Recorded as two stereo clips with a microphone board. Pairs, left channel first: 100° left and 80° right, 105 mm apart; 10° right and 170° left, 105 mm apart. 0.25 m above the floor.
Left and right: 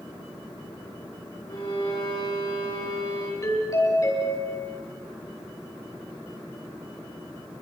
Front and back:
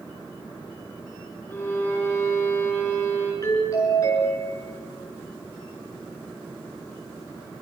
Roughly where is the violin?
Ahead left.